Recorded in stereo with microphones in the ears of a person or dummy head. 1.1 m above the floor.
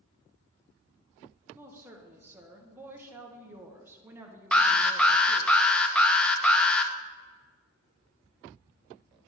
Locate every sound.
1.6 s a woman speaking: 10° right (ahead or behind), 1.0 m
4.5 s an alarm: 10° left (ahead or behind), 0.7 m